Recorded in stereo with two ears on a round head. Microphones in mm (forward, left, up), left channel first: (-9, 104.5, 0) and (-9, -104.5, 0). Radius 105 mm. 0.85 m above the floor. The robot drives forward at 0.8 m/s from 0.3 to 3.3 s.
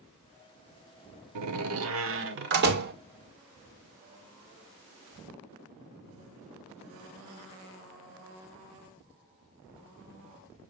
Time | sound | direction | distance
1.4 | a door slam | 85° right | 1.2 m